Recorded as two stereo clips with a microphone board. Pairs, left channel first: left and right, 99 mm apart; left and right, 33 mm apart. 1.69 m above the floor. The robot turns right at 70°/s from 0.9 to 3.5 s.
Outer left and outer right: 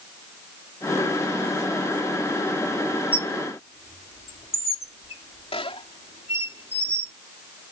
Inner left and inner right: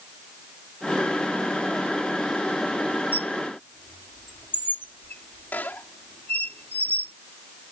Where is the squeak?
70° left (ahead or behind); by 7.1 s 75° left (ahead or behind).